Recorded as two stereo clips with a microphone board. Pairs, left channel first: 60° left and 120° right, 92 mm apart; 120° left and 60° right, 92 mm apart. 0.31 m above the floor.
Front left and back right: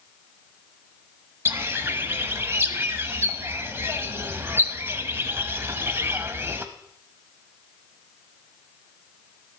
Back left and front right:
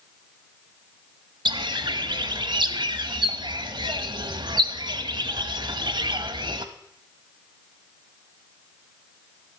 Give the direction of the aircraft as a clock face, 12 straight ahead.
I don't hear an aircraft.